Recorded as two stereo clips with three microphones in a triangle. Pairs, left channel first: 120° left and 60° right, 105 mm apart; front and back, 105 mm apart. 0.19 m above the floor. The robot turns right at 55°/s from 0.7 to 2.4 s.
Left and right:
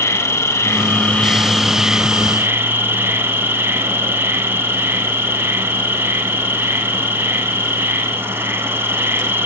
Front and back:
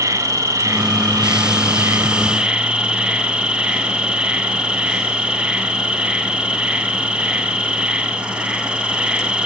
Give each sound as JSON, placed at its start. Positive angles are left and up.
{"t": 0.0, "sound": "an insect", "azimuth_deg": 160, "distance_m": 1.0}